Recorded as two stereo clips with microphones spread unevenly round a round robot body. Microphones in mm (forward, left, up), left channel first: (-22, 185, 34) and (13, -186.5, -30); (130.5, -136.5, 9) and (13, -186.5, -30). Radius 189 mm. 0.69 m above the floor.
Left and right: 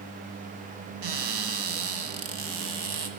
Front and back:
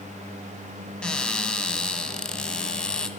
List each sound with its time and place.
1.0 s a cupboard door: 60° right, 1.8 m